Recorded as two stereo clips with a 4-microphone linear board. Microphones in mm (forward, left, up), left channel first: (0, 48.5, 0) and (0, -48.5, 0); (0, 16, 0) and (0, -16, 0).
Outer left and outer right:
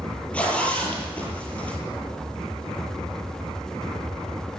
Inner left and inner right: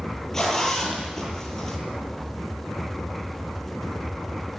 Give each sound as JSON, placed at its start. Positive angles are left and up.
{"t": 0.3, "sound": "a zipper", "side_deg": 15, "distance_m": 8.5}